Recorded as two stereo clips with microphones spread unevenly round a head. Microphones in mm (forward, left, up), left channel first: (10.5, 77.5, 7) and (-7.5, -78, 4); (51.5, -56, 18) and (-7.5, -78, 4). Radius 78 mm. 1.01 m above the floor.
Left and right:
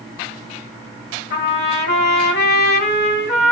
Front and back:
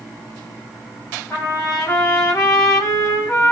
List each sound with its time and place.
1.3 s a trumpet: 90° left, 1.4 m